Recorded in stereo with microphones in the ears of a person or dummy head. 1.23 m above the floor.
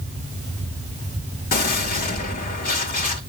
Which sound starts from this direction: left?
A gunshot, at 1.5 s.